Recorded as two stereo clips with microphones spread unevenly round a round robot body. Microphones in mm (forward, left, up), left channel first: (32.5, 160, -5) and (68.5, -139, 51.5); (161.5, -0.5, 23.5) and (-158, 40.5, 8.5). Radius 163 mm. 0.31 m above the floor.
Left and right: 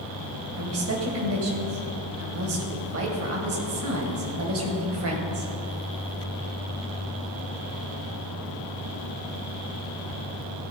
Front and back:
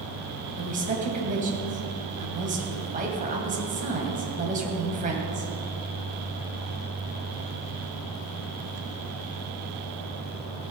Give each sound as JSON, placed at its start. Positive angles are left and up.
{"t": 0.6, "sound": "a woman speaking", "azimuth_deg": -130, "distance_m": 2.0}